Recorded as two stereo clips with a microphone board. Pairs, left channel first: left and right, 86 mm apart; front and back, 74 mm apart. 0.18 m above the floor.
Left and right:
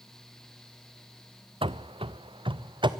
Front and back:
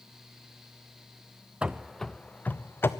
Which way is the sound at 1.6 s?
105° right.